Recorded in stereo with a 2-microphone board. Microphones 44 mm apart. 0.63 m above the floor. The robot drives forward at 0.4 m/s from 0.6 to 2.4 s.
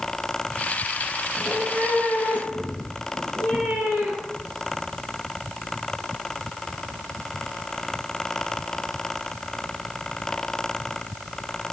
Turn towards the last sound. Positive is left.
turn(degrees=-30)  # may be behind; listen again after turning